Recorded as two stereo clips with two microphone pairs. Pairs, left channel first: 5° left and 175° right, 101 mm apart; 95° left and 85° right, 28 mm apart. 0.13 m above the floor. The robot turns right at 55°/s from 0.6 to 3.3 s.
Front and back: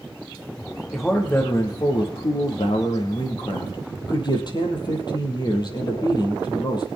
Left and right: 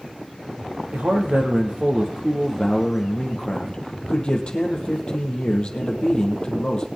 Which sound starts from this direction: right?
A man speaking, at 0.9 s.